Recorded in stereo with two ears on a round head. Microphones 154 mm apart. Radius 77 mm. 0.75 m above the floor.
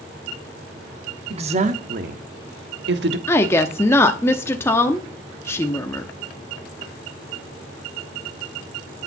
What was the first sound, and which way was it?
A woman speaking, 35° right (ahead or behind).